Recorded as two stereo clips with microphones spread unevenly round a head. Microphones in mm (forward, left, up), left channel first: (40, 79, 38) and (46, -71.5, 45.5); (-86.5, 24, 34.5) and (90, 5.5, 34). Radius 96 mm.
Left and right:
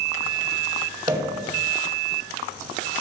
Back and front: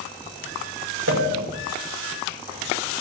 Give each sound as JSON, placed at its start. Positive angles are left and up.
{"t": 1.1, "sound": "a pop", "azimuth_deg": -25, "distance_m": 2.5}